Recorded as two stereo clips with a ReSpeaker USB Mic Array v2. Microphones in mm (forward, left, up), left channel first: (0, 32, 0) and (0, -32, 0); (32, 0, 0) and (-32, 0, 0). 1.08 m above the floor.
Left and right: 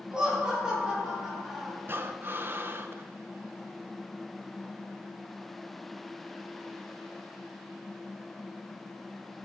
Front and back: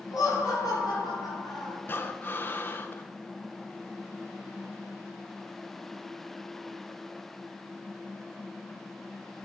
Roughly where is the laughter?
Ahead.